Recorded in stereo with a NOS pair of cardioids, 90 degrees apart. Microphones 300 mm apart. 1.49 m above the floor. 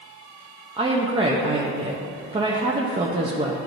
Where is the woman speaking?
20° right, 0.6 m.